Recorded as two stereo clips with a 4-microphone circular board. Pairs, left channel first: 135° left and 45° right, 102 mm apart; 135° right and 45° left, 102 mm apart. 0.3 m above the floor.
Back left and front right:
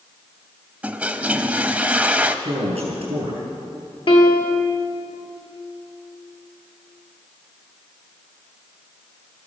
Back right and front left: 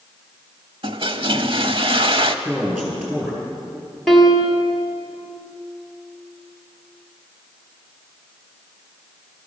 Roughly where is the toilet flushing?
Ahead left.